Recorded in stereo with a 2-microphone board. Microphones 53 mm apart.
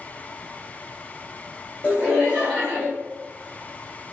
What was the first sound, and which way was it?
Laughter, 25° left (ahead or behind).